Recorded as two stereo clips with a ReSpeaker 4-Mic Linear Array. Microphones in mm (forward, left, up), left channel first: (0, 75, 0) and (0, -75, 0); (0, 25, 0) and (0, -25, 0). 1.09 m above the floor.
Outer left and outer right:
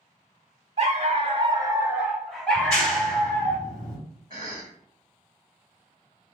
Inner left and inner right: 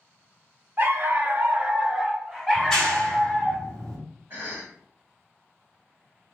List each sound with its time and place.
0.8 s a dog barking: 45° right (ahead or behind), 0.7 m; by 3.5 s 15° left (ahead or behind), 1.5 m
2.5 s a clap: 5° left (ahead or behind), 2 m
4.3 s a cough: 35° right (ahead or behind), 1.3 m